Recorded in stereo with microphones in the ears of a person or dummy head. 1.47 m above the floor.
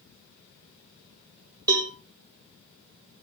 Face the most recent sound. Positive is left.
turn(degrees=-20)  # may be behind; listen again after turning